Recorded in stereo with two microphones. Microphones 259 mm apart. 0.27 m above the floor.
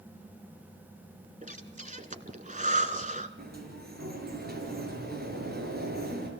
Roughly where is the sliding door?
Right.